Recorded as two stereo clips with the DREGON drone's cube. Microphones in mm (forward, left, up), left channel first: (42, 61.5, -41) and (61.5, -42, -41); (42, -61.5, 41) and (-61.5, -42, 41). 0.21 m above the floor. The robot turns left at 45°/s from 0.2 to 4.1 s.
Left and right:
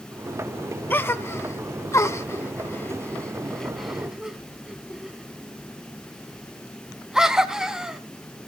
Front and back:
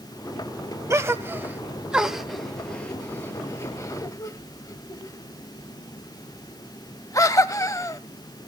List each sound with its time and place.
0.9 s a gasp: 145° left, 0.5 m; by 8.0 s straight ahead, 0.5 m